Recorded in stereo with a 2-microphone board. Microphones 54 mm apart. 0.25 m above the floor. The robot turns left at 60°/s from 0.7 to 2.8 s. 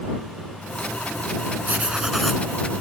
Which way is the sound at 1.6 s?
145° right.